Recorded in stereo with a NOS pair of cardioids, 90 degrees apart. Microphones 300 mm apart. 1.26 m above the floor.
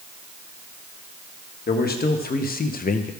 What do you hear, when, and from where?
1.7 s a man speaking: 30° left, 1.5 m; by 3.1 s 25° left, 0.8 m